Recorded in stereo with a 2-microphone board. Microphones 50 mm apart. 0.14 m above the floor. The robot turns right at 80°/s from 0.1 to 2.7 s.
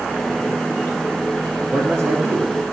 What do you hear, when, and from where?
1.7 s a man speaking: 105° right, 2 m; by 2.5 s 35° right, 2 m